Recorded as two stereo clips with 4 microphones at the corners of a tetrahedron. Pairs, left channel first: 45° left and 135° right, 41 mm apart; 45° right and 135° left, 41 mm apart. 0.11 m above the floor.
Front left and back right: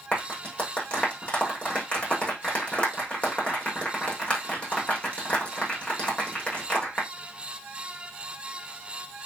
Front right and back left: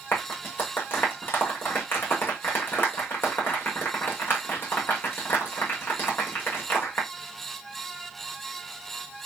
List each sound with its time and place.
0.1 s a clap: 15° right, 6.5 m